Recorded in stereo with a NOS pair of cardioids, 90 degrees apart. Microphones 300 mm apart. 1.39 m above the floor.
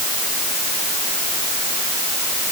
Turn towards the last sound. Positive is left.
No sound to turn to.